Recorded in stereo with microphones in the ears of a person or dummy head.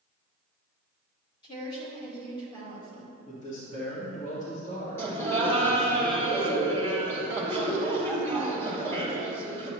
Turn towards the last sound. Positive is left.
turn(degrees=10)  # may be behind; listen again after turning